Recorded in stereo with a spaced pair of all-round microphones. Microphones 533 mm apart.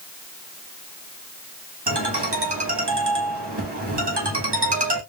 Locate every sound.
1.9 s a ringtone: 50° right (ahead or behind), 1.6 m